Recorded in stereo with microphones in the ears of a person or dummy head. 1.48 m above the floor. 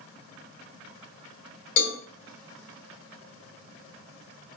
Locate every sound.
1.8 s a cowbell: 80° left, 2.5 m